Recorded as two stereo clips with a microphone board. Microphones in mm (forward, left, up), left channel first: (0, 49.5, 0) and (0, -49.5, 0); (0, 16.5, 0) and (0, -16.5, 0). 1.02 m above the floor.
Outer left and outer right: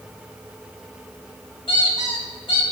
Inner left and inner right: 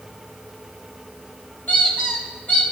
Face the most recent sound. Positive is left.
turn(degrees=60)  # may be behind; listen again after turning